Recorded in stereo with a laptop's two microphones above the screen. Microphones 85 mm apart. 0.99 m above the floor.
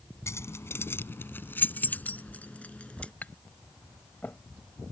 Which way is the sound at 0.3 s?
30° left (ahead or behind).